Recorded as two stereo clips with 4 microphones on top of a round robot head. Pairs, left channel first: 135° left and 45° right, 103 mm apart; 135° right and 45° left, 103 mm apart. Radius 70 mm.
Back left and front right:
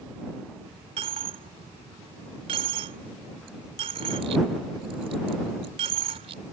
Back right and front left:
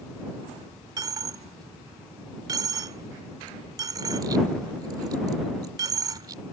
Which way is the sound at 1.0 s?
10° right.